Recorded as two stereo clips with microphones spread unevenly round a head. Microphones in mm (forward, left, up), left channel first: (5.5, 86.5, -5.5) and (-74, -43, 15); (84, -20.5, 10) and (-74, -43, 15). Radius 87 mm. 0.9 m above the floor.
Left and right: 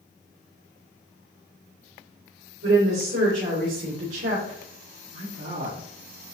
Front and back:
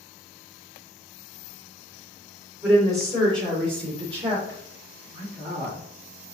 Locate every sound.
2.6 s a woman speaking: 100° right, 3 m; by 5.8 s 135° right, 2.5 m